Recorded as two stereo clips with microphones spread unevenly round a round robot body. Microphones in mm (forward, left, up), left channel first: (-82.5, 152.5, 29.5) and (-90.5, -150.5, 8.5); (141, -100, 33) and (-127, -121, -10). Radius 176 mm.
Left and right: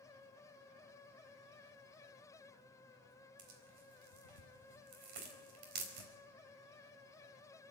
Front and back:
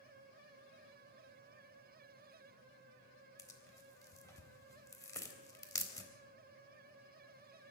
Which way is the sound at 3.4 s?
75° right.